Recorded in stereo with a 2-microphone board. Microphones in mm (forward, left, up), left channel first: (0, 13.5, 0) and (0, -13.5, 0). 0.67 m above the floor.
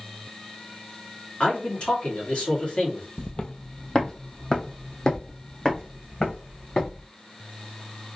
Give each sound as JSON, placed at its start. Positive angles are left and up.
{"t": 1.4, "sound": "a man speaking", "side_deg": 45, "distance_m": 1.6}
{"t": 3.2, "sound": "footsteps", "side_deg": 30, "distance_m": 0.7}